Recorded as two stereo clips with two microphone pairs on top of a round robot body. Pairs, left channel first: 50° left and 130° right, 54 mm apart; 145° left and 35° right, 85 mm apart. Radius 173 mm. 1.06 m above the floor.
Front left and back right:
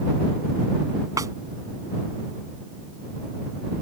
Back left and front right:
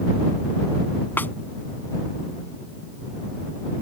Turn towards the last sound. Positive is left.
turn(degrees=-150)